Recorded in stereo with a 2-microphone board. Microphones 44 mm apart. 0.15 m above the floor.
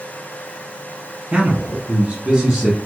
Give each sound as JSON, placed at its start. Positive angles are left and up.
{"t": 1.3, "sound": "a man speaking", "side_deg": -20, "distance_m": 1.5}